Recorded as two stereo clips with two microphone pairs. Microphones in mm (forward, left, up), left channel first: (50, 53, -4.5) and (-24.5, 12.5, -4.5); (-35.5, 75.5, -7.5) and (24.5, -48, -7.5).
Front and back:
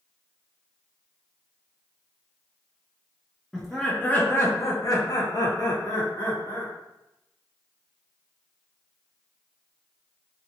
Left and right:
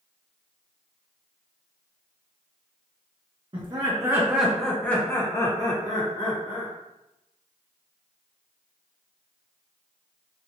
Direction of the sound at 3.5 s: 55° right.